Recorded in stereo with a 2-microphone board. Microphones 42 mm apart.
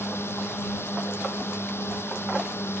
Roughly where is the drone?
Left.